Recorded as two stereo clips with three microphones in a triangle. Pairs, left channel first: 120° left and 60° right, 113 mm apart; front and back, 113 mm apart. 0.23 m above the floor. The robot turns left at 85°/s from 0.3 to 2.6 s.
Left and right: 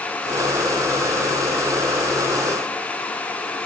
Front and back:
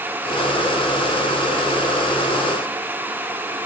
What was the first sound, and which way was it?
Only background noise.